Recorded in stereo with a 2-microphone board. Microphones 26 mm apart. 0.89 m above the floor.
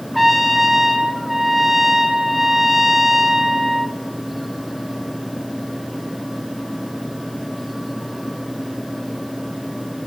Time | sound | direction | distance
0.1 | a trumpet | 5° right (ahead or behind) | 0.9 m